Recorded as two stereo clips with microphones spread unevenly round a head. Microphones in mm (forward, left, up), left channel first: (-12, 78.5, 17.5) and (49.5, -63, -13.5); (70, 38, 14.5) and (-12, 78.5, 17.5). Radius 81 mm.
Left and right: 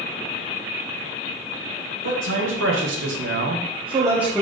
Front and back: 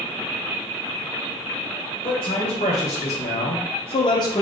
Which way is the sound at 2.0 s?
80° right.